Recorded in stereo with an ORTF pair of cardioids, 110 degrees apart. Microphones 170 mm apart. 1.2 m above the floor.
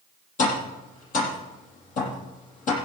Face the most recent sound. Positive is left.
turn(degrees=55)